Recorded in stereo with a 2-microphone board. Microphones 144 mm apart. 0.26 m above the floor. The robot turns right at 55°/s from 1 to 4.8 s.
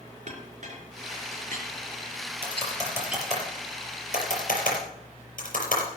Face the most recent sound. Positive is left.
turn(degrees=80)